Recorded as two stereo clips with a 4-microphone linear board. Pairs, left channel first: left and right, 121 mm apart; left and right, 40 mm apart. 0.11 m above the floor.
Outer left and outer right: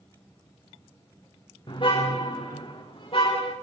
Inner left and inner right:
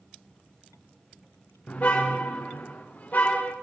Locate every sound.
1.7 s a car horn: 45° left (ahead or behind), 4 m; by 3.5 s 50° left (ahead or behind), 5.5 m